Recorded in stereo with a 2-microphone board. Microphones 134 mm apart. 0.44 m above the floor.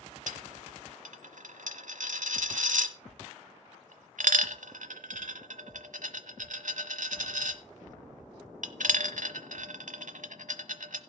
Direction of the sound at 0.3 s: 75° right (ahead or behind).